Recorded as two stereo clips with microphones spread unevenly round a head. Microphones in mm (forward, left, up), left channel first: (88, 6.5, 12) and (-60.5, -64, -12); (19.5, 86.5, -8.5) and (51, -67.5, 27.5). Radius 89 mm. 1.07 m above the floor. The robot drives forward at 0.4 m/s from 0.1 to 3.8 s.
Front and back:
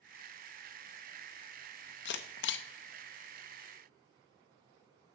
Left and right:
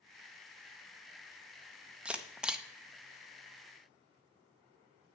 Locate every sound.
2.0 s a camera shutter: 5° left, 0.8 m; by 2.6 s 10° left, 0.6 m